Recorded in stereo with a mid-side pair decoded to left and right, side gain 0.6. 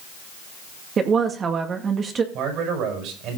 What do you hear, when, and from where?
1.0 s a woman speaking: 40° right, 2.0 m
2.3 s a man speaking: 65° right, 6 m